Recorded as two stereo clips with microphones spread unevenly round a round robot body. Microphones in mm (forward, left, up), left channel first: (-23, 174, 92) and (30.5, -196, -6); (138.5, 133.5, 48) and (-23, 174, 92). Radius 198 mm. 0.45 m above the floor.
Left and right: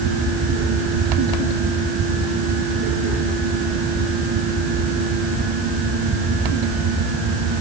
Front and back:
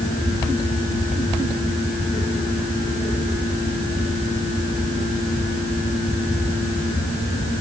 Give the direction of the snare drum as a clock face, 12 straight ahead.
No snare drum in this recording.